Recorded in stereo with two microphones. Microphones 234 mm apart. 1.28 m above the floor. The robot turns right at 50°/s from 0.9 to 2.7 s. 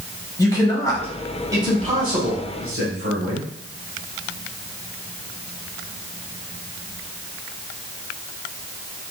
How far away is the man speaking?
About 1.7 m.